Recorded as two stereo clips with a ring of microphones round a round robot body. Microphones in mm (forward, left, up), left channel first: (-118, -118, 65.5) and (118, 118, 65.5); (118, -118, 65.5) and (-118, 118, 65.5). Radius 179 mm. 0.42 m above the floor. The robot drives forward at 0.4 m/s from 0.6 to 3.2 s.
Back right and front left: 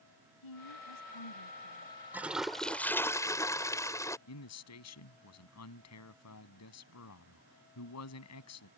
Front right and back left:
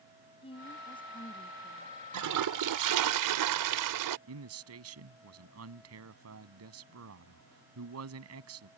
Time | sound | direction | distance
0.4 | a woman speaking | 120° right | ?
2.1 | a toilet flushing | 130° left | ?
4.3 | a man speaking | straight behind | ?